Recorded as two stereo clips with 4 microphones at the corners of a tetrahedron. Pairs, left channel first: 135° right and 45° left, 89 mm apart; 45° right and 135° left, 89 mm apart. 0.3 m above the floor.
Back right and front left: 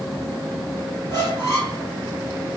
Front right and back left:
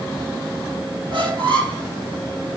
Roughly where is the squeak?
Behind.